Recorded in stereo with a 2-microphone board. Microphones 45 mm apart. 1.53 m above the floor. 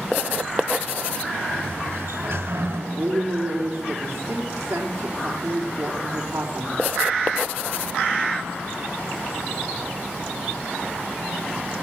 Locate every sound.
1.5 s a sliding door: 75° right (ahead or behind), 4 m
2.9 s a woman speaking: 75° right (ahead or behind), 4 m